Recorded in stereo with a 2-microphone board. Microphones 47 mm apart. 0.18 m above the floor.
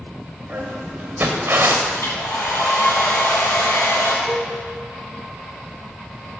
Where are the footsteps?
35° right (ahead or behind), 2.5 m; by 1.8 s 60° right (ahead or behind), 1.1 m.